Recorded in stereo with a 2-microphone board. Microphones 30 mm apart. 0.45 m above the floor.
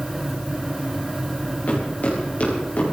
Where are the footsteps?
50° left (ahead or behind), 7.5 m.